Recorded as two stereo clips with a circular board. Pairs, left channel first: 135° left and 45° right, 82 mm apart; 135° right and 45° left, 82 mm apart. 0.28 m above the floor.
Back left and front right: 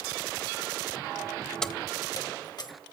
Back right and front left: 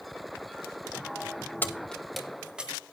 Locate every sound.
1.6 s keys jangling: 150° right, 0.7 m; by 2.7 s 120° left, 1.4 m